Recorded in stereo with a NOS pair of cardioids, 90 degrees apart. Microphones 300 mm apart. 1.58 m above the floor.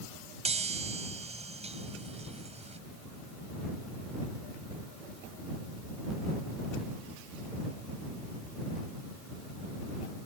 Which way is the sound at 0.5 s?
20° right.